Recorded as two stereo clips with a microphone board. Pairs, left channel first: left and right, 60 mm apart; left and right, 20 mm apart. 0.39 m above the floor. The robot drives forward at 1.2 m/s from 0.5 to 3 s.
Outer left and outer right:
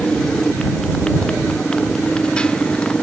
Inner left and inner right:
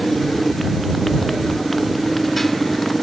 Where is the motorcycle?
15° left (ahead or behind).